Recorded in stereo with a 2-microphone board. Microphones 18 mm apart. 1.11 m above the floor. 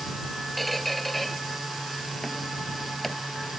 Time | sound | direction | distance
0.6 | a squeak | 5° left (ahead or behind) | ?